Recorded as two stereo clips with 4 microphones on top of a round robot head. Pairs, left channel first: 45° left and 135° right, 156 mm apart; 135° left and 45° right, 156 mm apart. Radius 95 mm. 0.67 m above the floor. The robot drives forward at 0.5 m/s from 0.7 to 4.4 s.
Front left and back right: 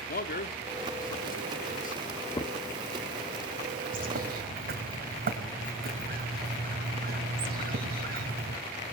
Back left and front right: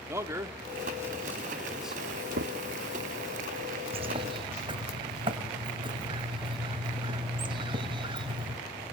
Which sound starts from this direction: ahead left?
A man speaking, at 0.1 s.